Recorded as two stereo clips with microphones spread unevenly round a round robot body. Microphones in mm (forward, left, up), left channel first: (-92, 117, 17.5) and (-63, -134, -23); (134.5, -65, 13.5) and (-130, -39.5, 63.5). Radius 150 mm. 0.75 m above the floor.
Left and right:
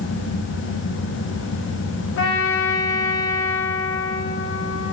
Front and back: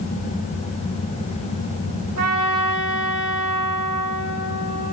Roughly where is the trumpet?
Behind left.